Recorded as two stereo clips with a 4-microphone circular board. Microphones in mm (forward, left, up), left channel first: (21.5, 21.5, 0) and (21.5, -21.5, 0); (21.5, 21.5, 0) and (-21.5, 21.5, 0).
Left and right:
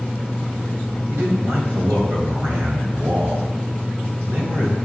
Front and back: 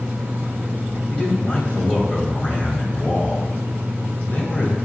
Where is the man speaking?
50° right, 2 m.